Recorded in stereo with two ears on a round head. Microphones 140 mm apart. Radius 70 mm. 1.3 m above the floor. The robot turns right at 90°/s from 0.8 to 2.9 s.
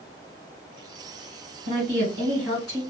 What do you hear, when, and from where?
1.7 s a woman speaking: 85° right, 1.5 m; by 2.8 s 15° left, 1.5 m